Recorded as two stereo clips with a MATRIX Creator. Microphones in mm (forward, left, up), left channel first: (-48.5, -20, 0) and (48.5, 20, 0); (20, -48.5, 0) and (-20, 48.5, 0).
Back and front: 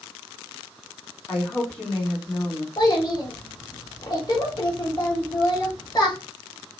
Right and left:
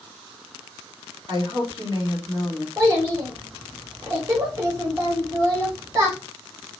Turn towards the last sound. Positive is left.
turn(degrees=165)